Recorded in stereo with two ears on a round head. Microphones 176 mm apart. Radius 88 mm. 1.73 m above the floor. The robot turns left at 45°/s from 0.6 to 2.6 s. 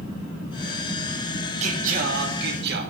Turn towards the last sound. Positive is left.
turn(degrees=-90)